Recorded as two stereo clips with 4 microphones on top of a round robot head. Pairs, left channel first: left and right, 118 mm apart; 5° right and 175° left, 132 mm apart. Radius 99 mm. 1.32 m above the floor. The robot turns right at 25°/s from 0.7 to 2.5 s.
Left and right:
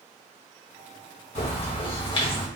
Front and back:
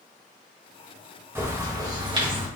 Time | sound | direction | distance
1.4 | a bird | 105° left | 1.6 m